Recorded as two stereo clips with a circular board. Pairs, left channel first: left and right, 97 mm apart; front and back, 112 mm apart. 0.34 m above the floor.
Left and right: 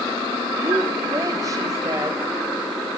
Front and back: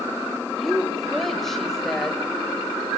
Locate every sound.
0.6 s a woman speaking: 85° right, 1.4 m